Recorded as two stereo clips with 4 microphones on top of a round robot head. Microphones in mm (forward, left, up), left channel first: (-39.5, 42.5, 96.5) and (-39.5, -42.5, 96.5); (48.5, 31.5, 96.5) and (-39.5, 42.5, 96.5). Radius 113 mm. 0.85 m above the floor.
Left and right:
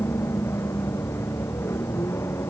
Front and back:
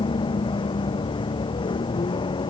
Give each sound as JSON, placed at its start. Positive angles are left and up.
{"t": 0.0, "sound": "a vehicle", "azimuth_deg": 25}